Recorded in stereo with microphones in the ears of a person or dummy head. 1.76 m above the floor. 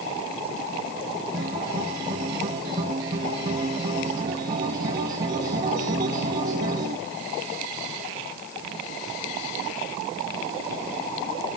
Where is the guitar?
25° right (ahead or behind), 1.2 m.